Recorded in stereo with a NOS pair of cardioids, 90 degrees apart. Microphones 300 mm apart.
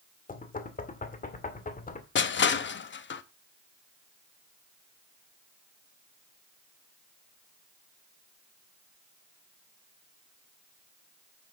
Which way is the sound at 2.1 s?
40° left.